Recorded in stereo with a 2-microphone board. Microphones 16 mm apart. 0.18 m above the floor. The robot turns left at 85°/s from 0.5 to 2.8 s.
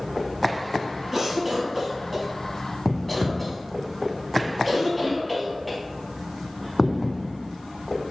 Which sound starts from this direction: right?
A cough, at 1.1 s.